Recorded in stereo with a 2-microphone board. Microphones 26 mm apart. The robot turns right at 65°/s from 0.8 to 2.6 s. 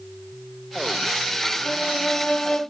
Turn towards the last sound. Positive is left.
turn(degrees=140)